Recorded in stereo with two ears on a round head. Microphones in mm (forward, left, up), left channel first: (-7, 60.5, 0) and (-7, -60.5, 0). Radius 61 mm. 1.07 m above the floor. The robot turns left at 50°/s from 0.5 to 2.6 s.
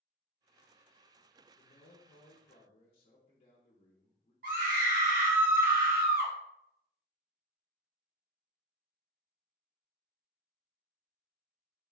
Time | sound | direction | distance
1.6 | a man speaking | 95° left | 0.6 m
4.4 | a scream | 70° right (ahead or behind) | 1.2 m